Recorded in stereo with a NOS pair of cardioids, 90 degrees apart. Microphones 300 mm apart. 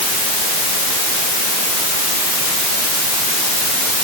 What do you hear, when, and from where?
Only background noise.